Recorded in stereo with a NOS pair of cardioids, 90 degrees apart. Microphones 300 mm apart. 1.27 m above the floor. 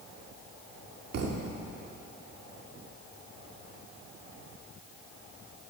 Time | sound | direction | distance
1.1 | a thud | 55° right | 1.8 m